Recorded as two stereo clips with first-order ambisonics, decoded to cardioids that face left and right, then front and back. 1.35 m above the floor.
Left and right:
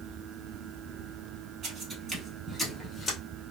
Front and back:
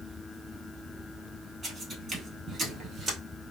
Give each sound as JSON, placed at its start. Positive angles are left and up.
{"t": 1.6, "sound": "footsteps", "azimuth_deg": -110, "distance_m": 1.5}